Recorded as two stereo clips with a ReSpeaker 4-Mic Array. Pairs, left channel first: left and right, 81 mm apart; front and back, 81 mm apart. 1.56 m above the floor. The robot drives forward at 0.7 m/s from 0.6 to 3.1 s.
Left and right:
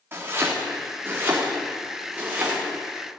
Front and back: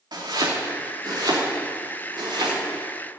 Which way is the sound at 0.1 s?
150° right.